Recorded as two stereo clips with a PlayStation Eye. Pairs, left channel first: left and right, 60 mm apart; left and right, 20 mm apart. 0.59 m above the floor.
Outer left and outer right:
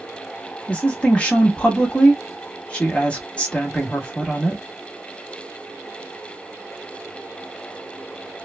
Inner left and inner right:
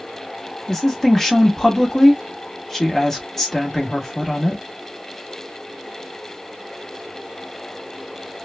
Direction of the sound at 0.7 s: 20° left (ahead or behind).